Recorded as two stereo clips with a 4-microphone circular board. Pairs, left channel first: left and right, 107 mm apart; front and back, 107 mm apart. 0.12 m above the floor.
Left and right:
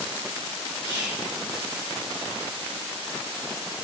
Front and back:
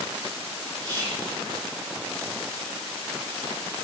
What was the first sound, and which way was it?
Whispering, 145° right.